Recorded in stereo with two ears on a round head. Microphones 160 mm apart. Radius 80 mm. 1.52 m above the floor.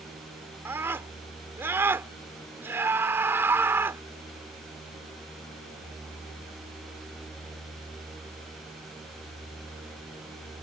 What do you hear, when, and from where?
0.7 s a scream: 15° right (ahead or behind)